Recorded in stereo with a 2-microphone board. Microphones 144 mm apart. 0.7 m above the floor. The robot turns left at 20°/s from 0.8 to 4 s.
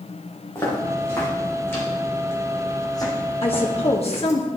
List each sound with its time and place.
0.6 s footsteps: 20° left (ahead or behind), 4 m; by 4.4 s 55° left (ahead or behind), 2.5 m
3.4 s a woman speaking: 40° left (ahead or behind), 0.9 m; by 4.5 s 45° left (ahead or behind), 0.9 m